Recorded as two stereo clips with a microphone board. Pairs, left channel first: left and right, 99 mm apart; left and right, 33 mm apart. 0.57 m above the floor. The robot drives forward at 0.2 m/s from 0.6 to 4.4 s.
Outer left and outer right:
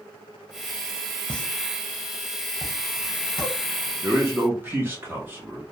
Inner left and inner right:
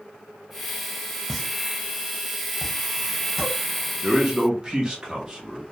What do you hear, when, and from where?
1.3 s a pop: 10° left (ahead or behind), 0.6 m; by 3.5 s 5° left (ahead or behind), 1.0 m
4.0 s a man speaking: 25° right (ahead or behind), 0.8 m; by 5.6 s 20° right (ahead or behind), 0.9 m